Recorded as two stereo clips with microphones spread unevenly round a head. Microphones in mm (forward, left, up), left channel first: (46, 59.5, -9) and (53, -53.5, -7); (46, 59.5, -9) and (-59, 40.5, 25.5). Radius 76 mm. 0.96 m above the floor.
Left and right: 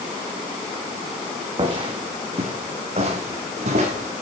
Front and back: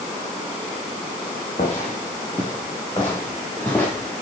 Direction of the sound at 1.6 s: 45° right.